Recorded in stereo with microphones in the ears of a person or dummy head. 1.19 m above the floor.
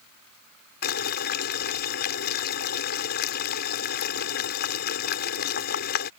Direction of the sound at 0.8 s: 60° left (ahead or behind).